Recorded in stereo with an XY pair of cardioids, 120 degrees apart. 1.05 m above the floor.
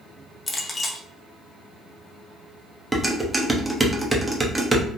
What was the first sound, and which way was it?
A clink, 25° left.